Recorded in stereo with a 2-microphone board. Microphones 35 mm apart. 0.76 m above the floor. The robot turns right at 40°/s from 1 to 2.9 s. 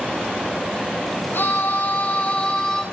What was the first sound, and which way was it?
A scream, 105° left.